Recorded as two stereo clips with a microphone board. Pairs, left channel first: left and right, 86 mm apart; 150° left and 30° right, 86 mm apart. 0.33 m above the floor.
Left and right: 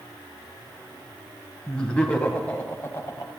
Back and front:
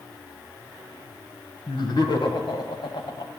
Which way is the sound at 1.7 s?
170° left.